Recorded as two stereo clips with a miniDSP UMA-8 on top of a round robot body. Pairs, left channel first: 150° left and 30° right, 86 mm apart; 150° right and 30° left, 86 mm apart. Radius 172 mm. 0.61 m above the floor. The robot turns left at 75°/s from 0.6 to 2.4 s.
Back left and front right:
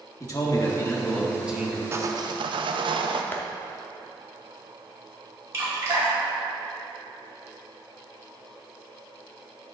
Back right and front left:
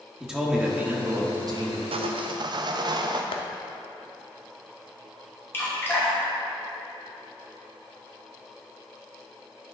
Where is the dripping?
85° right, 2.5 m.